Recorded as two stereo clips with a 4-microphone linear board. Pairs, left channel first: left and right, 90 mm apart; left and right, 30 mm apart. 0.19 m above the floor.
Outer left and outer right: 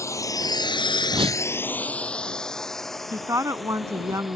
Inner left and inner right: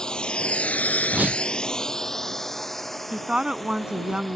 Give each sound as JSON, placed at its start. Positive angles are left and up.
{"t": 0.0, "sound": "a drone", "side_deg": 35}
{"t": 1.1, "sound": "a whoosh", "side_deg": -75}
{"t": 3.1, "sound": "a woman speaking", "side_deg": -35}